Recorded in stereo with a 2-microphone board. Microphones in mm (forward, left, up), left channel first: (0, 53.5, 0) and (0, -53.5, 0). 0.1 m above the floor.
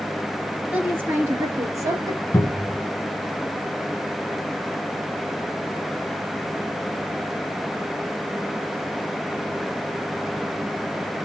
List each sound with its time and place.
0.7 s a woman speaking: 15° right (ahead or behind), 1.8 m; by 2.2 s 35° right (ahead or behind), 2 m
2.3 s a cupboard door: 20° left (ahead or behind), 0.9 m